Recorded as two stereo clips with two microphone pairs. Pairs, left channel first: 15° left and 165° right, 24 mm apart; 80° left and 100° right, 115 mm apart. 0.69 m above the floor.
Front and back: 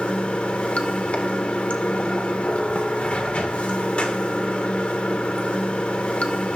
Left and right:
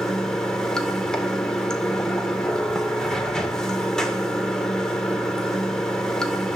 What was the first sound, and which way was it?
Running water, 10° right.